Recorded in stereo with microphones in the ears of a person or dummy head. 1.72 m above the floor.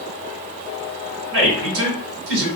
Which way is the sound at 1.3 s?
70° right (ahead or behind).